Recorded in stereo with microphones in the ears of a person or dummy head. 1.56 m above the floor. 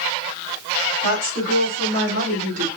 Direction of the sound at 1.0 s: 75° right (ahead or behind).